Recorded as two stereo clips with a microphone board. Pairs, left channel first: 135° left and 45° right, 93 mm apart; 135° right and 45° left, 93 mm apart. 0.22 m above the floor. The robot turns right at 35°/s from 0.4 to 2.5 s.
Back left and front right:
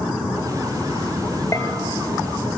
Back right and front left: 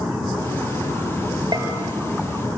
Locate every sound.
1.5 s a bell: 85° left, 1.9 m; by 1.9 s 95° left, 1.9 m